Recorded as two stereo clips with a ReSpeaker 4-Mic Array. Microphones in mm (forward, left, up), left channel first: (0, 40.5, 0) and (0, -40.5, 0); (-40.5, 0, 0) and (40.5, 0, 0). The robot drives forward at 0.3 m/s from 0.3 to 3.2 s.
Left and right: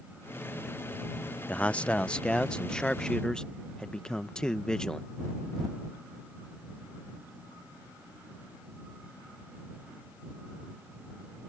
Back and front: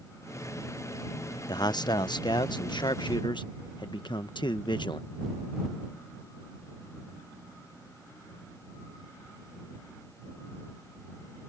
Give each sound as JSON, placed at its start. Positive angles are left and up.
{"t": 1.5, "sound": "a man speaking", "azimuth_deg": 160}